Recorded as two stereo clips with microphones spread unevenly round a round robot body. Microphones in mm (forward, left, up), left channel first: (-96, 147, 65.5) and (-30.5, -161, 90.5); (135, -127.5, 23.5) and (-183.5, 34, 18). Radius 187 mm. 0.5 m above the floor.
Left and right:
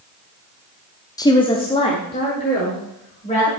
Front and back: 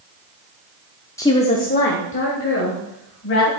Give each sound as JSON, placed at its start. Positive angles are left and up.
{"t": 1.2, "sound": "a woman speaking", "azimuth_deg": 50, "distance_m": 0.7}